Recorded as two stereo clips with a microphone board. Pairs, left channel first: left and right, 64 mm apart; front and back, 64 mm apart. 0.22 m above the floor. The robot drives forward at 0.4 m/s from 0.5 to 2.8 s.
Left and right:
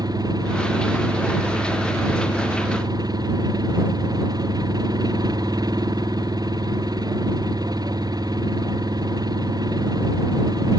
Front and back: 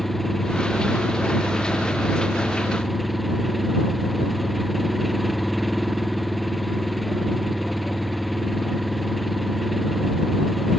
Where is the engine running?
85° right; by 10.8 s 90° right.